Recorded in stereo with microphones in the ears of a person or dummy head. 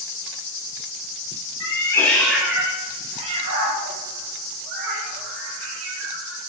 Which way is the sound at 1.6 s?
25° left (ahead or behind).